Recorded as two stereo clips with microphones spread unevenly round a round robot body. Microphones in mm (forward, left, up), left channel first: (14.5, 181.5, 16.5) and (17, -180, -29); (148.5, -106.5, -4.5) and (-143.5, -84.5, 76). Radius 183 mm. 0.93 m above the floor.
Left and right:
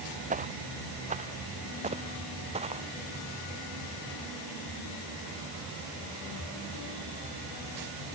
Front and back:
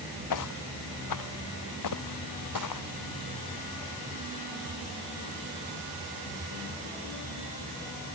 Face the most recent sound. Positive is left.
turn(degrees=-15)